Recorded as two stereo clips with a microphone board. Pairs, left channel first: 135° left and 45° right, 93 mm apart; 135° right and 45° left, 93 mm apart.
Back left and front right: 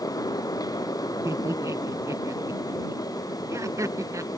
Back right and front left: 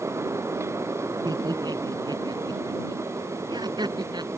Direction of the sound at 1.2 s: 10° left.